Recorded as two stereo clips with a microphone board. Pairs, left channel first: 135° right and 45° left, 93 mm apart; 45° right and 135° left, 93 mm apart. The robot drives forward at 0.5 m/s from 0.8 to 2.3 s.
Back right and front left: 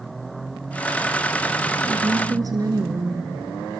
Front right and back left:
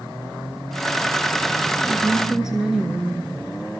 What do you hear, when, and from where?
1.8 s a woman speaking: 45° left, 2 m; by 3.2 s 50° left, 2 m